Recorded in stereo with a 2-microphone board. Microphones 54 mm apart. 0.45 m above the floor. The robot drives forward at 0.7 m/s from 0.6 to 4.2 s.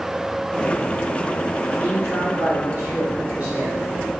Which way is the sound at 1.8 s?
30° right (ahead or behind).